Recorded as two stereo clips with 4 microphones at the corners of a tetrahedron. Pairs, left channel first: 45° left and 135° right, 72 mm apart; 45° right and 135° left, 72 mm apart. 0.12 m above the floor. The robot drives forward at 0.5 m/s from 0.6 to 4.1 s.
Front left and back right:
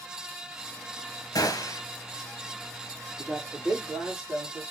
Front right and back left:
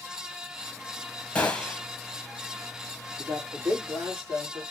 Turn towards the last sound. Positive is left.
turn(degrees=-170)